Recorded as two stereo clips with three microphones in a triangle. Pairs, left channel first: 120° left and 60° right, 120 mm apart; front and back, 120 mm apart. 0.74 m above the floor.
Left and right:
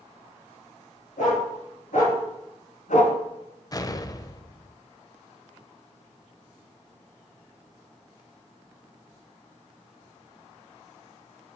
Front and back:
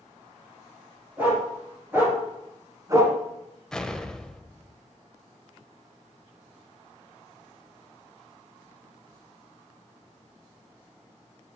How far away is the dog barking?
About 4.5 m.